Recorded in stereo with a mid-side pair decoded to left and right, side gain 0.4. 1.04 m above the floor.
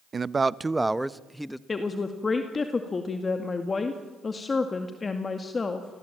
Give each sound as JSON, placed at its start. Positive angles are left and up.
{"t": 0.1, "sound": "a man speaking", "azimuth_deg": -40, "distance_m": 0.7}
{"t": 1.7, "sound": "a woman speaking", "azimuth_deg": 40, "distance_m": 2.0}